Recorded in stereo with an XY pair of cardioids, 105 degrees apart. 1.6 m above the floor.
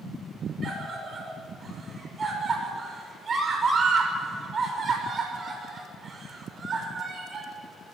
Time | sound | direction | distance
0.6 | a scream | 40° right | 5.5 m